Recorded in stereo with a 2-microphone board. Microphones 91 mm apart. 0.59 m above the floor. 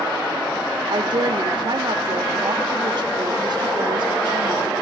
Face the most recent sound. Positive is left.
turn(degrees=-55)  # may be behind; listen again after turning